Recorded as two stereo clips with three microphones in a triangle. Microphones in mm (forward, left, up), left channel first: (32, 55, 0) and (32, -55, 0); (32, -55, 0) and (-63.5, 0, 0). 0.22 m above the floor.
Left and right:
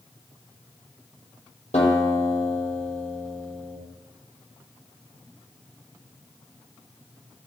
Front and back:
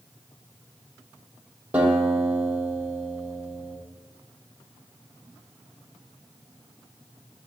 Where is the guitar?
70° left, 6.5 m.